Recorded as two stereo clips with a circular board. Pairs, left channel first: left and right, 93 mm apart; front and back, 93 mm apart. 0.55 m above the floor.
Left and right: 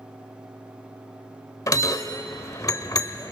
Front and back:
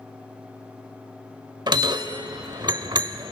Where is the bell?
140° left, 0.9 m.